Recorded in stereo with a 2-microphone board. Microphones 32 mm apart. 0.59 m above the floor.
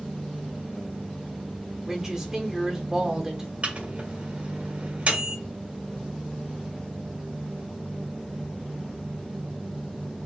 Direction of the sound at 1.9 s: 20° right (ahead or behind).